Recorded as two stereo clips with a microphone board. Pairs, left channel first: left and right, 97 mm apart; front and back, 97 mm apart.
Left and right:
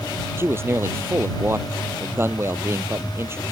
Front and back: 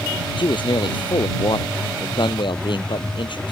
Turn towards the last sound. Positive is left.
turn(degrees=-30)